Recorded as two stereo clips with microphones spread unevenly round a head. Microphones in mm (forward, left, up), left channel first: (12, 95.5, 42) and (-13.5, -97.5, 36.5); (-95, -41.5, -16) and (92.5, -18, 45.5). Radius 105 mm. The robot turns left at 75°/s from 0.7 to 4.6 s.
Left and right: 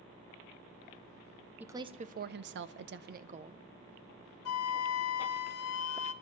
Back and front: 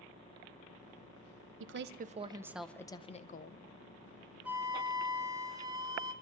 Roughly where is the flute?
Left.